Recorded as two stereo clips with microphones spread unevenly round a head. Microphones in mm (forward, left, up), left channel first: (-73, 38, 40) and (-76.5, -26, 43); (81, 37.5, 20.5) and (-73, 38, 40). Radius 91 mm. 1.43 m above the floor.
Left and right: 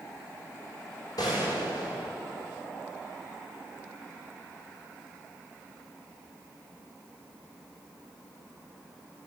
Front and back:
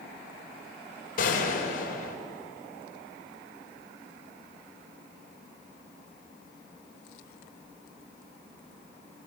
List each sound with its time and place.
1.2 s a gunshot: 35° left, 4 m